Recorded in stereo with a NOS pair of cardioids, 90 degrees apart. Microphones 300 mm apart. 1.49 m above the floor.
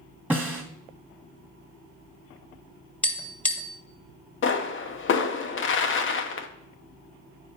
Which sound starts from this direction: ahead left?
A pop, at 4.4 s.